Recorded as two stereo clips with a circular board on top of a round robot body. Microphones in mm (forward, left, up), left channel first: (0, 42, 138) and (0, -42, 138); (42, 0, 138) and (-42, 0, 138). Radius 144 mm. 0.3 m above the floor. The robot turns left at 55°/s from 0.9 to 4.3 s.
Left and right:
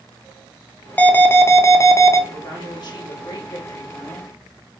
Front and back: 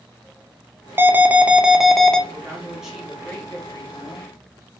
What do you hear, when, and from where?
1.0 s an alarm: 145° left, 0.7 m; by 2.2 s 75° left, 0.7 m
2.3 s a woman speaking: 130° left, 1.9 m; by 4.3 s 20° left, 1.9 m